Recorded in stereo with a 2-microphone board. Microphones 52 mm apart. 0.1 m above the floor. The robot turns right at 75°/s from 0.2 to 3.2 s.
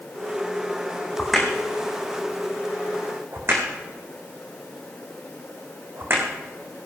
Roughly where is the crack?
Centre.